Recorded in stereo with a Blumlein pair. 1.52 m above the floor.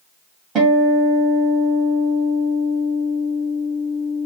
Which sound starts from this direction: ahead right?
A guitar, at 0.6 s.